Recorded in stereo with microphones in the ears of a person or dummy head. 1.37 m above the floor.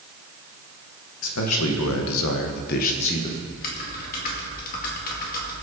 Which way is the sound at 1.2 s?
75° left (ahead or behind).